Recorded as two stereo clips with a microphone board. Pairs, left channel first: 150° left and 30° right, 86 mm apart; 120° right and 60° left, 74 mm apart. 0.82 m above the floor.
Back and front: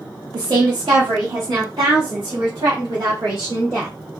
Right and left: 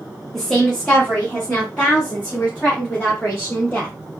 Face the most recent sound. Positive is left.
turn(degrees=-50)